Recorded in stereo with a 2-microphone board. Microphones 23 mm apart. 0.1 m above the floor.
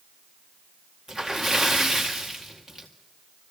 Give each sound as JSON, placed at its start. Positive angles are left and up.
{"t": 1.1, "sound": "a splash", "side_deg": 5, "distance_m": 2.0}